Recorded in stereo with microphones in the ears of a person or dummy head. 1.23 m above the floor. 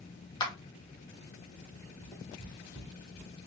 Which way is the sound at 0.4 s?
20° left (ahead or behind).